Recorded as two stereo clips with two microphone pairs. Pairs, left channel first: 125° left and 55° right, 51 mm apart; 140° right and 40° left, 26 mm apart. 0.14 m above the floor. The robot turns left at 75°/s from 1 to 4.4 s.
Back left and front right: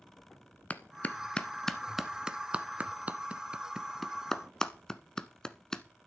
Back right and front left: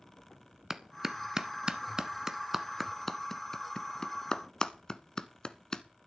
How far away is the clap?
About 0.9 m.